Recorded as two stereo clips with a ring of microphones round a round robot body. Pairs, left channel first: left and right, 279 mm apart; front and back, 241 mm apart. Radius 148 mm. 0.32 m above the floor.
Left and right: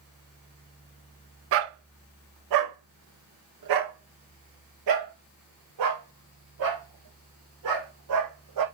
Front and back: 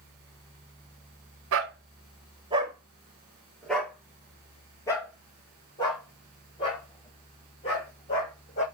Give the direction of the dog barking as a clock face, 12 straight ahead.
5 o'clock.